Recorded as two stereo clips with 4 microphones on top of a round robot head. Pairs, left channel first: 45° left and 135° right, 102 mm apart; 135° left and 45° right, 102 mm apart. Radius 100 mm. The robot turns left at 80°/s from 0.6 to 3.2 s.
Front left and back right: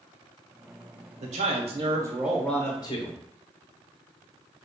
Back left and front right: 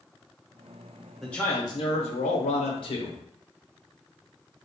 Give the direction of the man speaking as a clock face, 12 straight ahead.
4 o'clock.